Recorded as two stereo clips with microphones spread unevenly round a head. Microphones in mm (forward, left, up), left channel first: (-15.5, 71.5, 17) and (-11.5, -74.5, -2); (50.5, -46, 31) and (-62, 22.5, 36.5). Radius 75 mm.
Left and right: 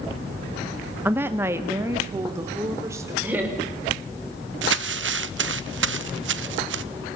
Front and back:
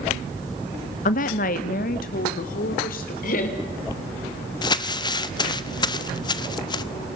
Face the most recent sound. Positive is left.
turn(degrees=-90)